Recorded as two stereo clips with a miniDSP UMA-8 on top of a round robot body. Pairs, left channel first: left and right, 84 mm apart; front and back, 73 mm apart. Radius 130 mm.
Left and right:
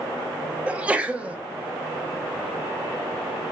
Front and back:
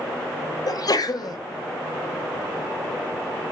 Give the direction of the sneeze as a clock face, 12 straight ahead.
1 o'clock.